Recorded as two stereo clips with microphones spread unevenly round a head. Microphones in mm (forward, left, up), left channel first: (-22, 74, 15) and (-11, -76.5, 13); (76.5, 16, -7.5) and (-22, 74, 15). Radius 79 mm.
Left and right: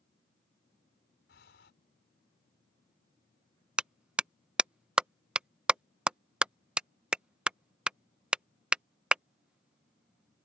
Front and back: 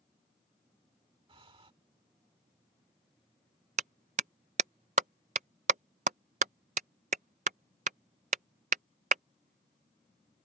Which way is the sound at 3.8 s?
170° right.